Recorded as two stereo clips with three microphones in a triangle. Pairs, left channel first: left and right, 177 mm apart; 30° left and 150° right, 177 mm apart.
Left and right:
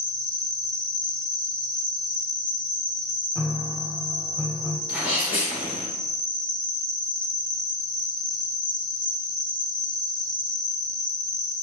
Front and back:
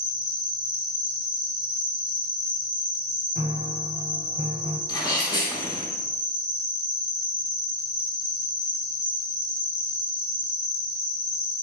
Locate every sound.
0.0 s an insect: 5° left, 0.9 m
3.4 s a piano: straight behind, 0.6 m
4.9 s a sneeze: 15° right, 1.6 m